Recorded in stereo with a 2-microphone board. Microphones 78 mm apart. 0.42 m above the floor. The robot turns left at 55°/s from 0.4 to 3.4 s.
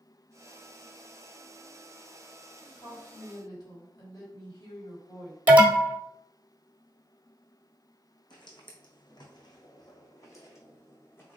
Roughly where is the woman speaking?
Left.